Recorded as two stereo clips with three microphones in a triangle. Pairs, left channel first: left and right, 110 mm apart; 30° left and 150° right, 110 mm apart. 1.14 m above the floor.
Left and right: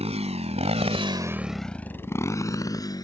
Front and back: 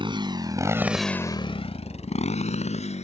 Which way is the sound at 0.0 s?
110° right.